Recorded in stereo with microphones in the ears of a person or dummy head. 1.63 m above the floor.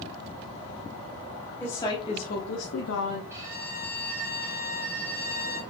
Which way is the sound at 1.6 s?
15° left (ahead or behind).